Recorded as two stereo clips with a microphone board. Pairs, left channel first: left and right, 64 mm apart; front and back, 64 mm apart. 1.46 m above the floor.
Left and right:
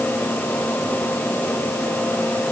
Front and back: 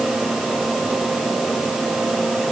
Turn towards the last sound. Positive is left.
No sound to turn to.